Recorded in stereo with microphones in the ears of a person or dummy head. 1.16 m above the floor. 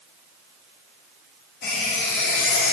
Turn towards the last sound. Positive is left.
turn(degrees=60)  # may be behind; listen again after turning